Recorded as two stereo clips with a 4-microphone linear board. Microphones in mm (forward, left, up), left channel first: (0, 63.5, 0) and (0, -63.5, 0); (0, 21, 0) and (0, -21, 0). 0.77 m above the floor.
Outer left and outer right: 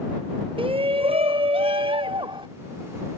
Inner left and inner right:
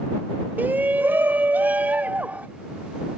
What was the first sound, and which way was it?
A shout, 45° right (ahead or behind).